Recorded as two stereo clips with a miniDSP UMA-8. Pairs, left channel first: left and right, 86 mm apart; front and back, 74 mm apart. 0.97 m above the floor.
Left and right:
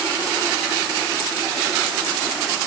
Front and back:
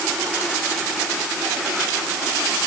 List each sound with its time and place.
Only background noise.